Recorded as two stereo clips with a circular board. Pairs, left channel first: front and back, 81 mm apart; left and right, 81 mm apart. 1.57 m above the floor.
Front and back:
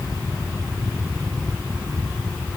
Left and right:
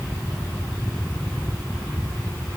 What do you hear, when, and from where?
Only background noise.